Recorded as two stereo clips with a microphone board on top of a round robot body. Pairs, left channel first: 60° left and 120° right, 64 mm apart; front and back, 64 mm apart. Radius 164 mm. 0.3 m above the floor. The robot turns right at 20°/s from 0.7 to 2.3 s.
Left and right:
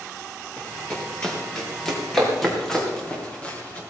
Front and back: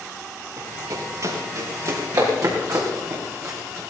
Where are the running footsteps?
135° left, 6.5 m; by 3.8 s 130° left, 5.5 m.